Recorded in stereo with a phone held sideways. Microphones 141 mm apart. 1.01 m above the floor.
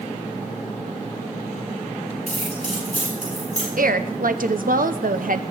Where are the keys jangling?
50° left (ahead or behind), 8 m.